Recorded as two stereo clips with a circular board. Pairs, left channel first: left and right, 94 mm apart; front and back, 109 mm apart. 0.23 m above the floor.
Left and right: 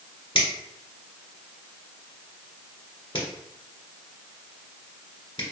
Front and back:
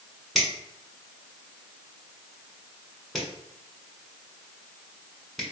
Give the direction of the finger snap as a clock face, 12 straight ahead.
9 o'clock.